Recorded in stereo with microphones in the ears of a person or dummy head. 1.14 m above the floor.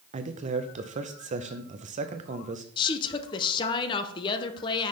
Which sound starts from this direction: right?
A man speaking, at 0.1 s.